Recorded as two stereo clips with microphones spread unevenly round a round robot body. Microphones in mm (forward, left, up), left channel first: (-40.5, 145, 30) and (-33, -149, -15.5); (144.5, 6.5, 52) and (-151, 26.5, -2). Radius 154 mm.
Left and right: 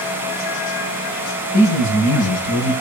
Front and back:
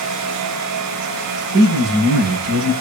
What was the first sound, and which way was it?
A man speaking, 125° left.